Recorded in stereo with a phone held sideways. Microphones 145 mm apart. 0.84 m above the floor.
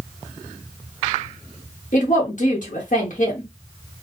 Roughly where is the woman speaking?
Left.